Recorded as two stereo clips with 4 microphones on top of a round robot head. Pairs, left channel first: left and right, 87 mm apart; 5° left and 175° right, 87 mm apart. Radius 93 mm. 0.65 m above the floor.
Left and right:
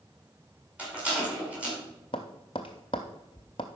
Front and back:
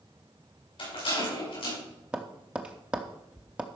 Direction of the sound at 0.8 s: 15° right.